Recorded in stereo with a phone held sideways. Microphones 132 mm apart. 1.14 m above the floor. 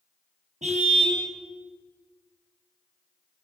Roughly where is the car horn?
Right.